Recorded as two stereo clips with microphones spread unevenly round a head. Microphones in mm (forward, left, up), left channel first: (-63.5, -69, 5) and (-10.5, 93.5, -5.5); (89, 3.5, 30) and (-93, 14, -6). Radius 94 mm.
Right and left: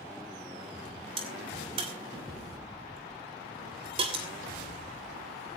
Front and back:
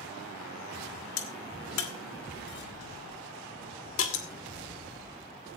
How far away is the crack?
About 2.5 m.